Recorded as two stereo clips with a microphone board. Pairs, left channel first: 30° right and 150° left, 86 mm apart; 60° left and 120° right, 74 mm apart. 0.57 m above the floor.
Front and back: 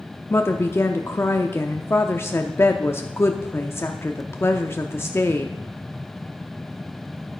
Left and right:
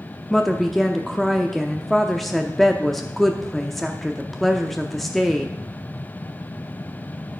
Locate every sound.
0.3 s a woman speaking: 25° right, 0.6 m